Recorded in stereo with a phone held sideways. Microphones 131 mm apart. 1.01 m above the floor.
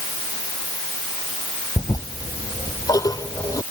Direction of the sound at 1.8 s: 25° left (ahead or behind).